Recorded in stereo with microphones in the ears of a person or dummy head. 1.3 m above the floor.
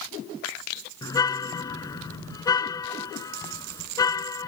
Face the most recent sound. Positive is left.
turn(degrees=15)  # may be behind; listen again after turning